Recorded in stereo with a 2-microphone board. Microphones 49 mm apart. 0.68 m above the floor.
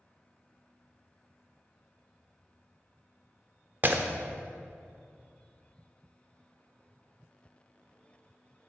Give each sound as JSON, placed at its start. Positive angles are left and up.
{"t": 3.8, "sound": "breaking glass", "side_deg": -45, "distance_m": 0.7}